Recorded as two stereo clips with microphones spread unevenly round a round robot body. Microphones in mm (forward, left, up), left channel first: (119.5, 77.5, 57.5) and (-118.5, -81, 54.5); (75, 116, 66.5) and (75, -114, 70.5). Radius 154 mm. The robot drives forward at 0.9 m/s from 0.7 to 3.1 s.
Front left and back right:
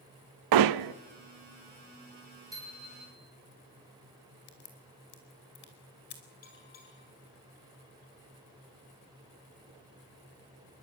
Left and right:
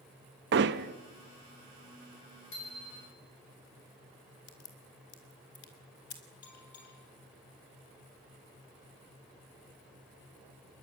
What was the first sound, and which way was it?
Hammering, 140° right.